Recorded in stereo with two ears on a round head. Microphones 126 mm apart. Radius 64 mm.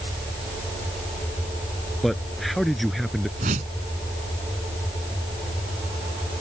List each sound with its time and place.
2.0 s a man speaking: centre (ahead or behind)
3.4 s a whoosh: 50° right (ahead or behind)